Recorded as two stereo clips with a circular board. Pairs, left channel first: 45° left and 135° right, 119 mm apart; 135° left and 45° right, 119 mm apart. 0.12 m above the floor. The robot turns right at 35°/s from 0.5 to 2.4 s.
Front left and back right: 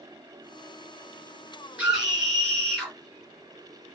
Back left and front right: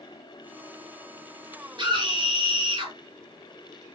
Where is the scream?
60° right, 2 m; by 2.9 s 35° right, 2 m.